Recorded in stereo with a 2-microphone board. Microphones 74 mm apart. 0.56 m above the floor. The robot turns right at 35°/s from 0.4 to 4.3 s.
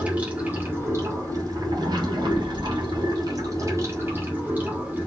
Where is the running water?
160° right, 2 m; by 5.1 s 20° right, 2 m.